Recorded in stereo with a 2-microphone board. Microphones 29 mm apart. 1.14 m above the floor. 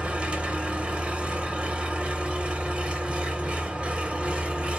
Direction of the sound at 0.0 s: 40° right (ahead or behind).